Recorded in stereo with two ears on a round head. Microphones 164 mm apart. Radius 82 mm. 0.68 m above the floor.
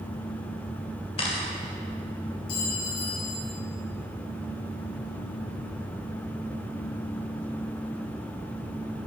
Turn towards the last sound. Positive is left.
turn(degrees=50)  # may be behind; listen again after turning